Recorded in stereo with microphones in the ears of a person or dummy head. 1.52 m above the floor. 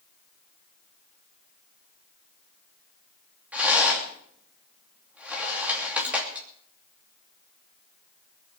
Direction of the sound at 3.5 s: 5° right (ahead or behind).